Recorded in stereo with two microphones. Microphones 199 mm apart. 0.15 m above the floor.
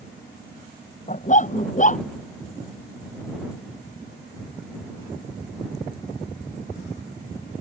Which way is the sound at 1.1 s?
40° left (ahead or behind).